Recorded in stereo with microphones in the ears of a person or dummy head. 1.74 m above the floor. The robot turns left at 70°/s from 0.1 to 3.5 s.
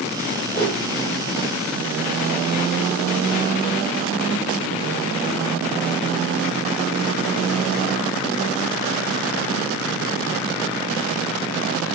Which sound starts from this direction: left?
A whoosh, at 0.5 s.